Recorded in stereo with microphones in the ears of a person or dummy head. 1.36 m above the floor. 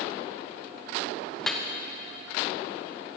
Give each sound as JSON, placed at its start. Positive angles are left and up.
{"t": 1.4, "sound": "dripping", "side_deg": 0, "distance_m": 0.6}